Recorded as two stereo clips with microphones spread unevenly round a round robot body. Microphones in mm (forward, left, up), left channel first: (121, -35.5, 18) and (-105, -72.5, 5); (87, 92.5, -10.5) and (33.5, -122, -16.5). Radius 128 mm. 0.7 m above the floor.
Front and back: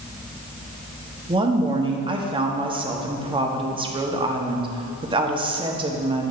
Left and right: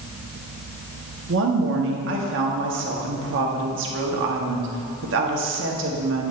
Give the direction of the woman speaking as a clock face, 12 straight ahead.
4 o'clock.